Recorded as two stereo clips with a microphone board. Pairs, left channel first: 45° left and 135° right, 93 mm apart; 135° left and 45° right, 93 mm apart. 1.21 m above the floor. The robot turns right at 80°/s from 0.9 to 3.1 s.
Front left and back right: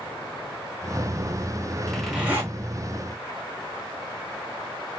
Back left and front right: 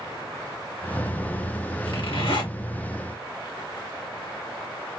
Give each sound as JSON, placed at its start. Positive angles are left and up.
{"t": 1.9, "sound": "a zipper", "azimuth_deg": 120, "distance_m": 3.0}